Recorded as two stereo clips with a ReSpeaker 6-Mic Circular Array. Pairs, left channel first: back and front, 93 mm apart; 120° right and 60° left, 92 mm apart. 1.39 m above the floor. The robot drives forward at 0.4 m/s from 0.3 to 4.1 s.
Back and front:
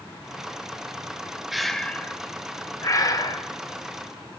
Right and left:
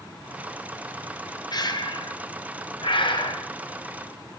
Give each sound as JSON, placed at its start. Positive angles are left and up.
{"t": 1.5, "sound": "breathing", "azimuth_deg": -85, "distance_m": 0.6}